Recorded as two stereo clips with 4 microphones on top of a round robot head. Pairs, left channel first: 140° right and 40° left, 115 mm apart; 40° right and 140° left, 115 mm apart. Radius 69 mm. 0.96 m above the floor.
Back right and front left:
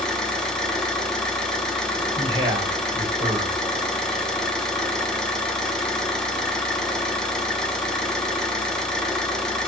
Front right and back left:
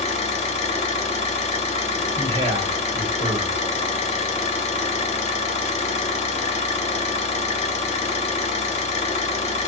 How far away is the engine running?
About 0.7 m.